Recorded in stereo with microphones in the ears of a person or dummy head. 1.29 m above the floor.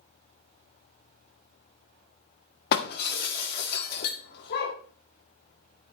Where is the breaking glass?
65° left (ahead or behind), 1.6 m.